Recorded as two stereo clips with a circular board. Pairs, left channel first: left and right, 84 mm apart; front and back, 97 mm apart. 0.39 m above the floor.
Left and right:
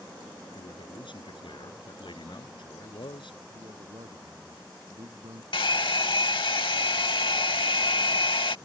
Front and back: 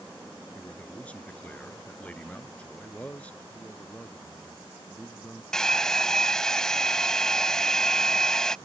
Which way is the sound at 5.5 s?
80° left.